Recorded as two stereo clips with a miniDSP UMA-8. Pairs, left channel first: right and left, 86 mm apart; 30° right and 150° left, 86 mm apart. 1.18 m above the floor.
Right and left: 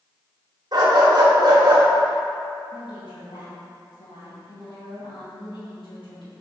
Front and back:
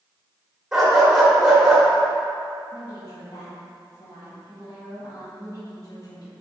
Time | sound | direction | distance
0.7 | a dog barking | 65° left | 1.5 m
2.7 | a woman speaking | 75° right | 1.8 m